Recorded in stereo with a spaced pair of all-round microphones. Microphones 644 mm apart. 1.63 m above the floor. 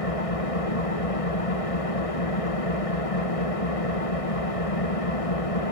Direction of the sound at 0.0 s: 55° left (ahead or behind).